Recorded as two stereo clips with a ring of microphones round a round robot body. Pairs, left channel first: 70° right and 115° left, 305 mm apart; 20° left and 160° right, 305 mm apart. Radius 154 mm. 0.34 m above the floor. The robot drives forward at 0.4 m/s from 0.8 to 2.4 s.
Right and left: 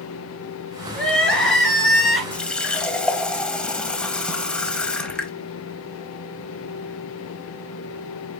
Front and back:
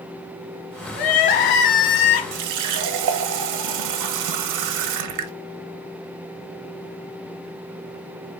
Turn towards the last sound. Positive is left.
turn(degrees=-155)